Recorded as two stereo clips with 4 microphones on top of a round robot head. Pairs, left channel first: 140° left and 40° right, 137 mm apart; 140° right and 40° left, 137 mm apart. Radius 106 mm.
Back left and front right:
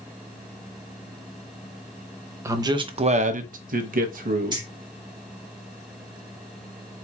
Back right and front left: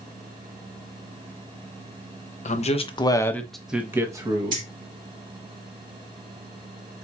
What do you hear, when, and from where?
2.5 s a man speaking: 110° right, 0.9 m; by 4.6 s 15° right, 1.3 m
4.5 s keys jangling: 15° left, 2 m